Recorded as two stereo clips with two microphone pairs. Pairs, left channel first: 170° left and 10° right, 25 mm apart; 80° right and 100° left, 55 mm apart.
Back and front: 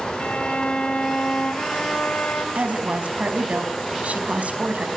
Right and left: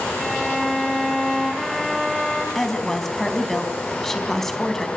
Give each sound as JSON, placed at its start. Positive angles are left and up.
{"t": 0.2, "sound": "a violin", "azimuth_deg": -170, "distance_m": 1.9}
{"t": 2.5, "sound": "a woman speaking", "azimuth_deg": 5, "distance_m": 4.0}